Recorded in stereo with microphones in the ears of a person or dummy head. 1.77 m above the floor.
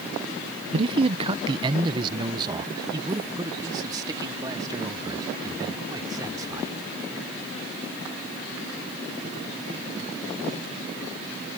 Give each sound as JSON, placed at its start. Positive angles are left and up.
{"t": 0.7, "sound": "a man speaking", "side_deg": -30}